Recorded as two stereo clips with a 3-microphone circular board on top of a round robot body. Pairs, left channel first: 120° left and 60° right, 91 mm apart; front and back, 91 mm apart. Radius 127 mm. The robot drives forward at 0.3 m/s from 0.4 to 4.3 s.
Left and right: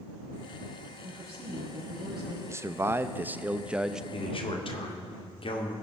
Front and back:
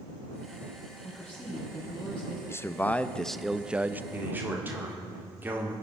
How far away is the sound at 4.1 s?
About 2 m.